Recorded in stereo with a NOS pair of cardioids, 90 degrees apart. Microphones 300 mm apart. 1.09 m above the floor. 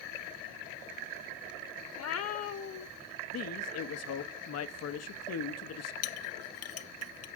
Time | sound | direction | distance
1.9 | a cat meowing | 65° left | 1.4 m
3.3 | a man speaking | 60° left | 1.0 m
6.0 | a clink | 65° left | 0.8 m